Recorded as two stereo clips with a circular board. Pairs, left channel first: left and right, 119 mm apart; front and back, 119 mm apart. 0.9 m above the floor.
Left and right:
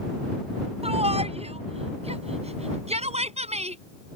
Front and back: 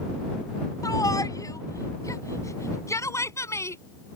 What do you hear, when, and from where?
0.8 s a shout: 60° right; by 3.8 s 65° right